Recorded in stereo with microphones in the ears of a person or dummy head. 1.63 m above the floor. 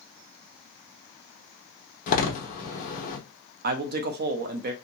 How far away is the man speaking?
About 0.5 m.